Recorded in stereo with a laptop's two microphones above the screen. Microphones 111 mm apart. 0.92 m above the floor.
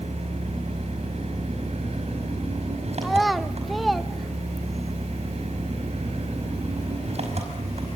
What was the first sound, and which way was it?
An engine running, 70° right (ahead or behind).